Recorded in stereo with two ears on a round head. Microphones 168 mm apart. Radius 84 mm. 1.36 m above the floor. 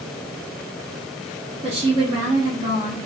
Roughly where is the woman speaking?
Right.